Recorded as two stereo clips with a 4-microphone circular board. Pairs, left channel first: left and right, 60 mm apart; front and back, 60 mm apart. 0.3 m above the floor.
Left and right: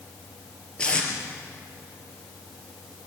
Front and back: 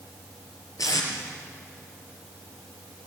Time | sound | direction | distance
0.8 | tape being pulled | 15° left | 5 m